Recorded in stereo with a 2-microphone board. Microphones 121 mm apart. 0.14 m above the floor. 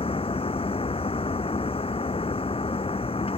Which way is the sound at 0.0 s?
50° left (ahead or behind).